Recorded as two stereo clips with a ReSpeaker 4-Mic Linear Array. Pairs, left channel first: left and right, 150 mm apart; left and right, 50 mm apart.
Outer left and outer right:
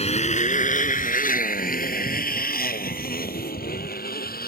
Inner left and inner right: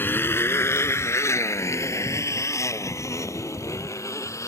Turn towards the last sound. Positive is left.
turn(degrees=85)